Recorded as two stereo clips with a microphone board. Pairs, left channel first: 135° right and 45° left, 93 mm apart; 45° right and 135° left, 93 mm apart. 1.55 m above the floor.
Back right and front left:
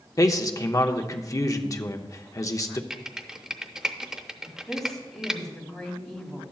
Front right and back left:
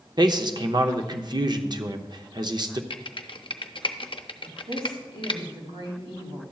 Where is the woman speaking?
140° left, 2.5 m.